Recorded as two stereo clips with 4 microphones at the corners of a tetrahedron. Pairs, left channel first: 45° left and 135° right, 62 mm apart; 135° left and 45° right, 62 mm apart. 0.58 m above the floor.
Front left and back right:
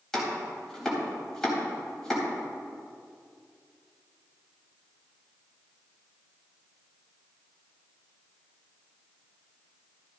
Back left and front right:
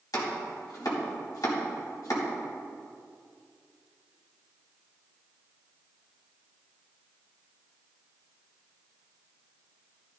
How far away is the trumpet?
No trumpet in this recording.